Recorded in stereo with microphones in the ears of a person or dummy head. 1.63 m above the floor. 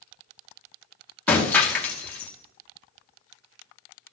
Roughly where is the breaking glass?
Centre.